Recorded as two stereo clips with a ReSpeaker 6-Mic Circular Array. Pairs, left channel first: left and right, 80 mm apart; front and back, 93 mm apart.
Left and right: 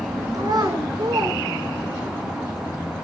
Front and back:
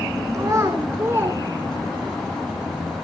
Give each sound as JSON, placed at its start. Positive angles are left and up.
{"t": 0.3, "sound": "a child speaking", "azimuth_deg": -125, "distance_m": 4.5}